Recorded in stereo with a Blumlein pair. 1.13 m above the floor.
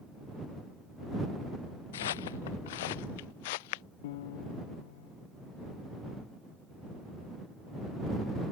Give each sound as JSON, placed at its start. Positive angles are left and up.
{"t": 1.9, "sound": "footsteps", "azimuth_deg": 60}
{"t": 4.0, "sound": "a piano", "azimuth_deg": 55}